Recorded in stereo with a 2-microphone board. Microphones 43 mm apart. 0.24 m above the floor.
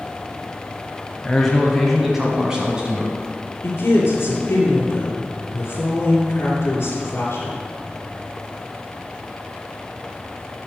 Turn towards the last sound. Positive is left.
turn(degrees=50)  # may be behind; listen again after turning